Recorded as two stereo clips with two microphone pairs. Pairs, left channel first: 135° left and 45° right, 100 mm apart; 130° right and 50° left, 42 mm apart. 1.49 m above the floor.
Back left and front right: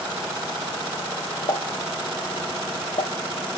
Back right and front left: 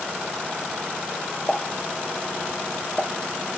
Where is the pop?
150° left, 1.1 m.